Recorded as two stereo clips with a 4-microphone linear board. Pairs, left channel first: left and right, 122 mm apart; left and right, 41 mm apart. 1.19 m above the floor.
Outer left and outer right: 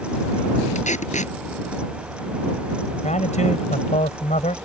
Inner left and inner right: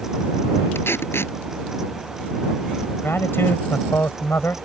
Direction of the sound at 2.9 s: 75° left (ahead or behind).